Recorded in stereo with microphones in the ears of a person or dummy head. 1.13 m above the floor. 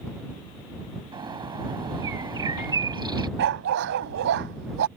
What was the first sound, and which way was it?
A bird, 20° right (ahead or behind).